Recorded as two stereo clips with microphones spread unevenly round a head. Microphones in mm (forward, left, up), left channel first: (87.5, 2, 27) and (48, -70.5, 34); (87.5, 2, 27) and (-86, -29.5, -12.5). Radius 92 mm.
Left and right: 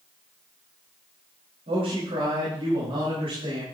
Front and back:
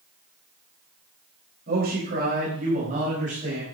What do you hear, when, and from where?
1.7 s a man speaking: 130° right, 4 m; by 3.6 s 115° right, 5 m